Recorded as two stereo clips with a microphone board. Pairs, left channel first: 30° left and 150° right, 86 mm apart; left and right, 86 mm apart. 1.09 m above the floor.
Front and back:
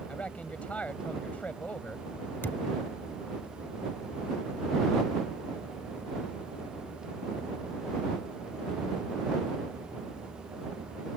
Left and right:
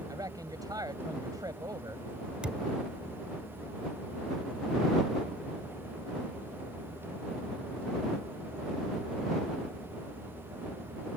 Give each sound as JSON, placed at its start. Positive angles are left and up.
{"t": 0.1, "sound": "a man speaking", "azimuth_deg": -45}
{"t": 2.4, "sound": "a thud", "azimuth_deg": -20}